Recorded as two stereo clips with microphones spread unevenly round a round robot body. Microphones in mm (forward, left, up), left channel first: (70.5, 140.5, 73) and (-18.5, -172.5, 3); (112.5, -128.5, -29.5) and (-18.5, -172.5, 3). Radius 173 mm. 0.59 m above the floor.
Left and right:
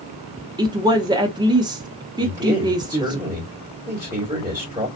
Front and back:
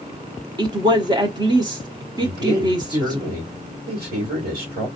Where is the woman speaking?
110° right, 0.6 m.